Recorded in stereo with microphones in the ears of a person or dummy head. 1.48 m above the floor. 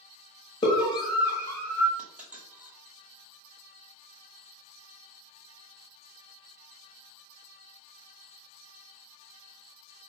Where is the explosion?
I don't hear an explosion.